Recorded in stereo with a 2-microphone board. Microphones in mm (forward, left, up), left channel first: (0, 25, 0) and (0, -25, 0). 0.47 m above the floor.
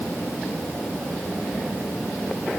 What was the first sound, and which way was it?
Only background noise.